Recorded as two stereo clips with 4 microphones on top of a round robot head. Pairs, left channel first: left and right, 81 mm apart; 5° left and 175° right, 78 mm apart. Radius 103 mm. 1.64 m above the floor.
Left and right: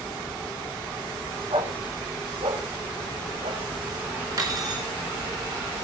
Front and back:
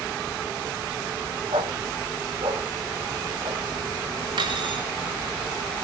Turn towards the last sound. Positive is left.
turn(degrees=-140)